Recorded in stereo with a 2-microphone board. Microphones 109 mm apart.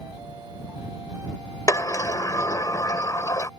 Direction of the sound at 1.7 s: 30° left (ahead or behind).